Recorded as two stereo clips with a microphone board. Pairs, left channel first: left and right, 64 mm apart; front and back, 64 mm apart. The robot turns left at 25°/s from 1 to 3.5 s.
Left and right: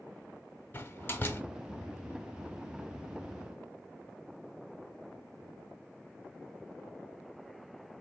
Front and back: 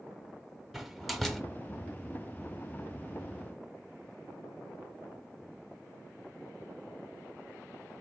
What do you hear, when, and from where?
0.7 s a door slam: 90° left, 0.8 m; by 1.4 s 80° left, 0.8 m